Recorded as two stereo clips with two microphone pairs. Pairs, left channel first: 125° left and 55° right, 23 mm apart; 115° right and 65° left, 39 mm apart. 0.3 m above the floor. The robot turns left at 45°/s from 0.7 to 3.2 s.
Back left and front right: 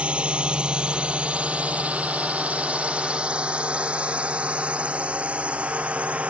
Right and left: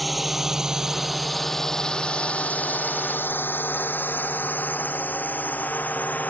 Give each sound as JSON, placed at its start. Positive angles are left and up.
{"t": 0.0, "sound": "a drone", "azimuth_deg": -25}